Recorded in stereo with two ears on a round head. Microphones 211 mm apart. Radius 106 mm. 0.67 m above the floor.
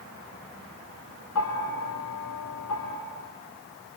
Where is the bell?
85° left, 3.5 m.